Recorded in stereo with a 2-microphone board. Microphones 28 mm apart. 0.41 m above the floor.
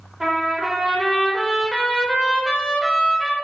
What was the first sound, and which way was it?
A trumpet, 15° right (ahead or behind).